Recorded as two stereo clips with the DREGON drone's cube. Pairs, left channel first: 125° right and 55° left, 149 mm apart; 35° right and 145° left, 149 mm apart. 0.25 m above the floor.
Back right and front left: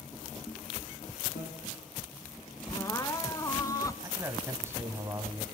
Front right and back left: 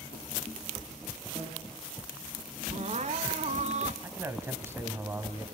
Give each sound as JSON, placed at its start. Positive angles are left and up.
{"t": 1.4, "sound": "a bicycle bell", "azimuth_deg": -130, "distance_m": 6.0}
{"t": 2.7, "sound": "crying", "azimuth_deg": 170, "distance_m": 0.8}
{"t": 4.0, "sound": "a man speaking", "azimuth_deg": 100, "distance_m": 1.6}